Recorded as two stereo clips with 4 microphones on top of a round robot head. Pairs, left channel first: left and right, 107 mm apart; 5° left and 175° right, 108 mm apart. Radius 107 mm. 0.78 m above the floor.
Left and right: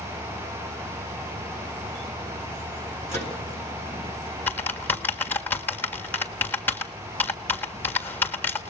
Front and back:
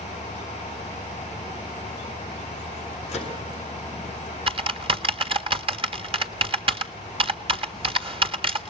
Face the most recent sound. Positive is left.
turn(degrees=160)